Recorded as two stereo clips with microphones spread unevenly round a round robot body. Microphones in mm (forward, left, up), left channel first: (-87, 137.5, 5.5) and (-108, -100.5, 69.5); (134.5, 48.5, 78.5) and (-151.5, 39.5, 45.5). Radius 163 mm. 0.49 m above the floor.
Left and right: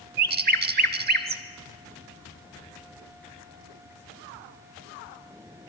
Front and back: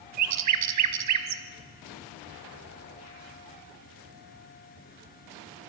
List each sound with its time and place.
0.2 s a bird: 145° right, 1.3 m